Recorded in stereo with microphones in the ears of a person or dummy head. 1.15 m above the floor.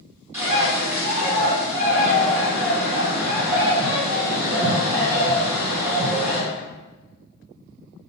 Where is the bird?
15° right (ahead or behind), 1.8 m.